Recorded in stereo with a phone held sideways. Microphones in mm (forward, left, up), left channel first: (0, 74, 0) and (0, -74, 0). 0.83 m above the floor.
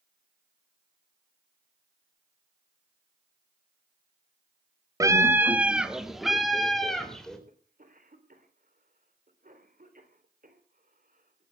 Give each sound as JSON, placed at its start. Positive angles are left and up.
{"t": 5.0, "sound": "a scream", "side_deg": -20, "distance_m": 1.1}
{"t": 7.5, "sound": "a cough", "side_deg": -65, "distance_m": 3.5}